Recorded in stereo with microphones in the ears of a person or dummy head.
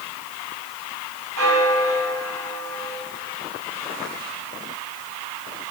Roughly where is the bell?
Right.